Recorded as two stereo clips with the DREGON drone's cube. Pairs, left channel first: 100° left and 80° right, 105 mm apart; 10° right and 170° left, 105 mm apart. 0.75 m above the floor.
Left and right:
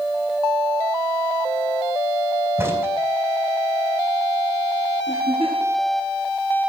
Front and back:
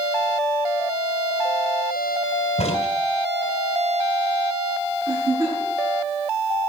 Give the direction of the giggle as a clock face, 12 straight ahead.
8 o'clock.